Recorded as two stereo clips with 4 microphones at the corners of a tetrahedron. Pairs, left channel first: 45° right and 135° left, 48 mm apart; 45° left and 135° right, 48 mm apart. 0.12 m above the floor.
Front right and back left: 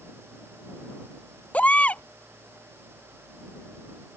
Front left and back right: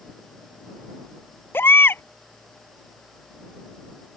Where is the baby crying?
15° left.